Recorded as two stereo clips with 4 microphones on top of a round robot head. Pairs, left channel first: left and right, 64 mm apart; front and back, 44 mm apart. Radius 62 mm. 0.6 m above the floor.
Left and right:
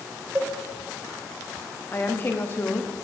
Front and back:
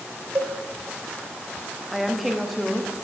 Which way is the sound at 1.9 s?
95° left.